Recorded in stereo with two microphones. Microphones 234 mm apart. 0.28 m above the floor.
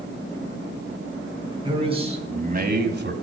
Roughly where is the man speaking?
Centre.